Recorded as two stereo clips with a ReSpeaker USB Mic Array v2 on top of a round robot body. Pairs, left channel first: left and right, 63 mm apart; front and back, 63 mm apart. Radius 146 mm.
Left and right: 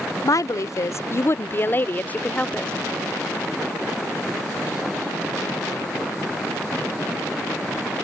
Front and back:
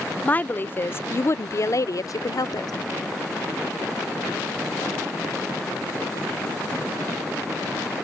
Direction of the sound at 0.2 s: 65° left.